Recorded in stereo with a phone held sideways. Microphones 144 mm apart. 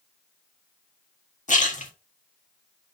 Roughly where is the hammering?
No hammering in this recording.